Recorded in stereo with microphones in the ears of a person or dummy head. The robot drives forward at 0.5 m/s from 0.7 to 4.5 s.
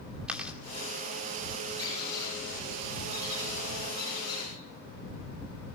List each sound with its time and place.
0.3 s chewing: 10° right (ahead or behind), 2.5 m
1.8 s a squeak: 40° right (ahead or behind), 7.5 m; by 4.5 s 30° right (ahead or behind), 8.5 m